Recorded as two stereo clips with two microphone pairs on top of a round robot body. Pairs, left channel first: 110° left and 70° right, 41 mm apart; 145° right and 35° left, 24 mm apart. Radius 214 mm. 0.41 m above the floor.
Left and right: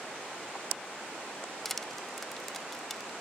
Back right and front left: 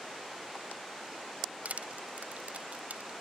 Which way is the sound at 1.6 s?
25° left.